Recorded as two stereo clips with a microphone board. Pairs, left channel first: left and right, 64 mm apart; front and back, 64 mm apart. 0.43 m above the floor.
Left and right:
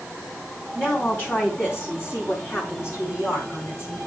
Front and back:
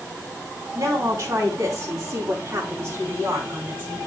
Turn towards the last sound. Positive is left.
turn(degrees=120)